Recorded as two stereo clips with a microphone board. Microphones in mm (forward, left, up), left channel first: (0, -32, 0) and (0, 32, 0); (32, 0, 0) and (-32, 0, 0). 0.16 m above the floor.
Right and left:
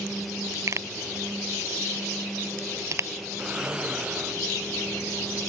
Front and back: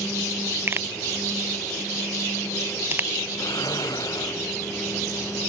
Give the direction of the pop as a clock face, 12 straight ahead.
8 o'clock.